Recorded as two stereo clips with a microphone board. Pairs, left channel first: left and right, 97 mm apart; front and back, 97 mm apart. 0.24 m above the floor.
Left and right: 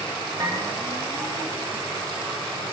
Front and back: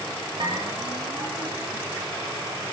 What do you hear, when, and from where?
0.4 s a bell: 145° right, 4.5 m